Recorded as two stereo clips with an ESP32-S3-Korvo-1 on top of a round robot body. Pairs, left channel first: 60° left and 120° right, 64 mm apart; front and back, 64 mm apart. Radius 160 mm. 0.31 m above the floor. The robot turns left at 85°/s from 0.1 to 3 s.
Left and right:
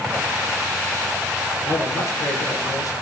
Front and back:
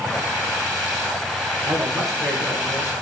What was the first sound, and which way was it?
A man speaking, 130° left.